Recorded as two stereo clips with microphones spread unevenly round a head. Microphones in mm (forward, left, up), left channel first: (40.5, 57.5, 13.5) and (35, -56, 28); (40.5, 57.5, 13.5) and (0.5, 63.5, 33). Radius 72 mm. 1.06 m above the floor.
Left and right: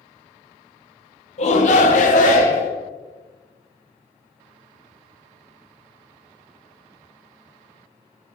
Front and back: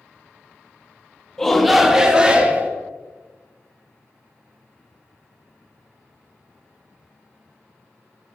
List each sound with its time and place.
1.4 s a shout: 65° left, 1.6 m; by 2.7 s 110° left, 2.5 m